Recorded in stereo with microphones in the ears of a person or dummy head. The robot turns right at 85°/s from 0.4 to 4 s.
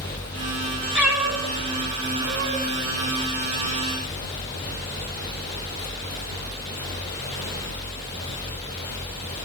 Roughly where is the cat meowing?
Centre.